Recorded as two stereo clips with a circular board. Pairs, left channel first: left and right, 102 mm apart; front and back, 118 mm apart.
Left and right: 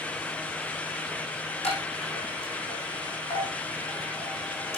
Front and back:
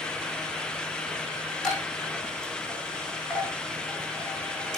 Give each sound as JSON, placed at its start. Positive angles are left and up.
{"t": 1.6, "sound": "a chime", "azimuth_deg": 85, "distance_m": 6.0}